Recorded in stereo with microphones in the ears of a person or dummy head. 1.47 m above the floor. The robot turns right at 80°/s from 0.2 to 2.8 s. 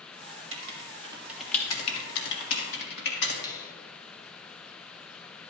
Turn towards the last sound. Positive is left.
turn(degrees=25)  # may be behind; listen again after turning